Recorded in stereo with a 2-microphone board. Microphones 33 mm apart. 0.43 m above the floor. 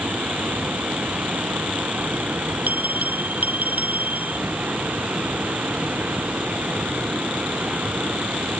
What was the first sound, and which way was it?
Running water, 65° right (ahead or behind).